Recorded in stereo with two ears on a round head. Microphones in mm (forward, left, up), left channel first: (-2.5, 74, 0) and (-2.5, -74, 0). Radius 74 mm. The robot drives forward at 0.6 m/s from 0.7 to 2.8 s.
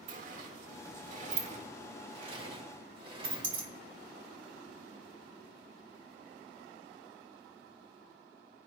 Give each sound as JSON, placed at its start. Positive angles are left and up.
{"t": 0.1, "sound": "a sliding door", "side_deg": -50, "distance_m": 1.5}